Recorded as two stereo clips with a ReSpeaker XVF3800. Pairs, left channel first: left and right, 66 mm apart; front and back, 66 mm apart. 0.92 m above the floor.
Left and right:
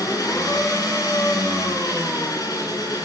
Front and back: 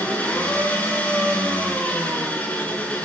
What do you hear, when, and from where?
0.0 s an engine running: 70° left, 8 m